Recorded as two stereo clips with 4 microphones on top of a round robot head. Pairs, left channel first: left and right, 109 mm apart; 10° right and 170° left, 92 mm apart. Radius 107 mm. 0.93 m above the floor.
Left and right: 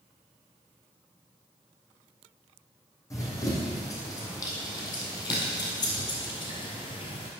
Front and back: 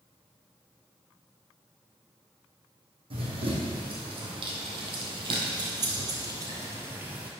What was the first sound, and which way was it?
Running footsteps, 150° left.